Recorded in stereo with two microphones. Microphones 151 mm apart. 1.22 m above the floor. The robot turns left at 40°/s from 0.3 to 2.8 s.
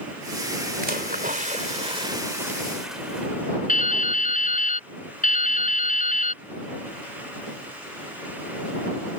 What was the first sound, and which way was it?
A splash, 100° right.